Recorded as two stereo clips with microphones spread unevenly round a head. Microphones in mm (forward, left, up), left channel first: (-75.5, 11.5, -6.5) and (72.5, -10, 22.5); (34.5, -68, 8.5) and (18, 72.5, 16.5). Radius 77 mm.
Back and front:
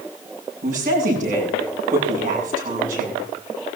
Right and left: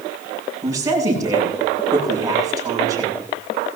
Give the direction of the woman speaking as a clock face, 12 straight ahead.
11 o'clock.